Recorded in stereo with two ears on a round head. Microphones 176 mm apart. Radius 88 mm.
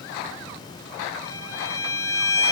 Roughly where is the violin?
Centre.